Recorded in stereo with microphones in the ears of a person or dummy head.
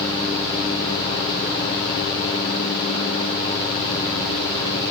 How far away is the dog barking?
No dog barking in this recording.